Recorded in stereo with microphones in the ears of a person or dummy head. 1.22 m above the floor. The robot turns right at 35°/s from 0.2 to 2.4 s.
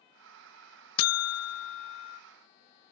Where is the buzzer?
80° left; by 2.2 s 120° left.